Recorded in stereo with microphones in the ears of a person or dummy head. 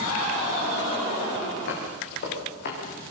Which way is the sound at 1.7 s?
55° left (ahead or behind).